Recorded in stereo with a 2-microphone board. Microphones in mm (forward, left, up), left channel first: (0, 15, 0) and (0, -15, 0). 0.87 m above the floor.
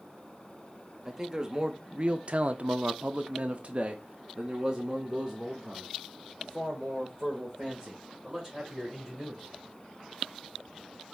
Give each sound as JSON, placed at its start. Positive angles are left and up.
{"t": 1.1, "sound": "a man speaking", "side_deg": -20, "distance_m": 1.0}